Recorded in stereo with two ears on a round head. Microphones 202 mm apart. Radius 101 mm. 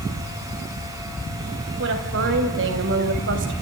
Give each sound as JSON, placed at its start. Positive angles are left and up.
{"t": 1.8, "sound": "a woman speaking", "side_deg": -55, "distance_m": 4.0}